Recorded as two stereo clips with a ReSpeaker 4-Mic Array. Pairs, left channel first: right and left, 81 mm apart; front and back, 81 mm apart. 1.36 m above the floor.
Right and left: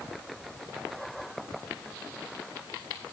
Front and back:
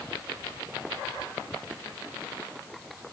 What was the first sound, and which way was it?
Only background noise.